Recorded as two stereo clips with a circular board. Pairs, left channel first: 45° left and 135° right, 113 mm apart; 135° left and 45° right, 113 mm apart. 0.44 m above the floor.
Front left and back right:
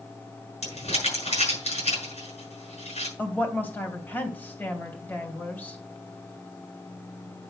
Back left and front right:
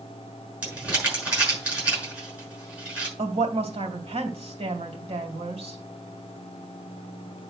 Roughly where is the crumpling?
Ahead left.